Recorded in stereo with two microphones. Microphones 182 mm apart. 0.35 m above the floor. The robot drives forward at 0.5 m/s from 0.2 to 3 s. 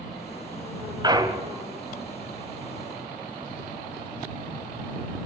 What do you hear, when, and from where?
1.0 s a clunk: 25° right (ahead or behind), 1.0 m; by 1.6 s 20° right (ahead or behind), 1.2 m